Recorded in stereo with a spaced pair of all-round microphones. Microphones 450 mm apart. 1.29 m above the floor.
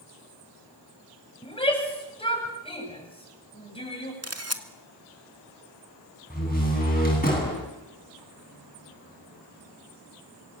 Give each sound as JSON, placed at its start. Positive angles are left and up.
{"t": 1.4, "sound": "a shout", "side_deg": 15, "distance_m": 8.0}
{"t": 4.2, "sound": "a camera shutter", "side_deg": -35, "distance_m": 1.7}
{"t": 6.3, "sound": "a door slam", "side_deg": 20, "distance_m": 9.5}